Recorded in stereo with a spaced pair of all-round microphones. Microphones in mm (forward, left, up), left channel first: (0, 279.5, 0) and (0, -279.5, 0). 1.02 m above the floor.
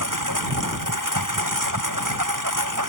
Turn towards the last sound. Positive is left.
turn(degrees=-35)  # may be behind; listen again after turning